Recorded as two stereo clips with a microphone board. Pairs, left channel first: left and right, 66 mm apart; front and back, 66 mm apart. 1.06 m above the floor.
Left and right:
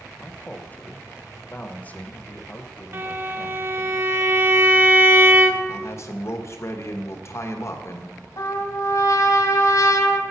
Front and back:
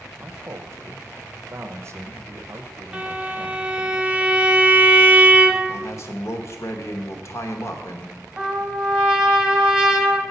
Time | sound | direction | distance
0.2 | a man speaking | 150° left | 0.8 m
2.9 | a violin | 115° right | 0.6 m
5.7 | a man speaking | 40° left | 1.0 m
8.4 | a trumpet | 100° left | 1.4 m